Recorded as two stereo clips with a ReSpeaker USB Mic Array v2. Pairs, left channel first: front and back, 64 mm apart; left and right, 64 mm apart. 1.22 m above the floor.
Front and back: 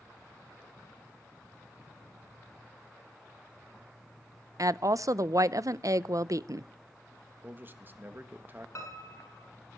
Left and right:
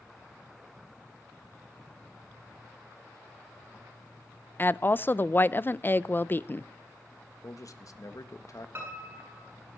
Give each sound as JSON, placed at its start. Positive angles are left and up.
{"t": 4.6, "sound": "a woman speaking", "azimuth_deg": 150, "distance_m": 0.5}
{"t": 7.4, "sound": "a man speaking", "azimuth_deg": 125, "distance_m": 1.5}
{"t": 8.8, "sound": "a piano", "azimuth_deg": -35, "distance_m": 8.0}